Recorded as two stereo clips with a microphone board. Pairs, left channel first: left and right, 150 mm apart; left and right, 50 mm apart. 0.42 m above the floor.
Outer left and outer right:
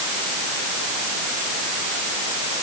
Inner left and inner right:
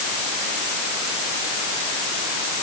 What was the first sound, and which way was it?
Only background noise.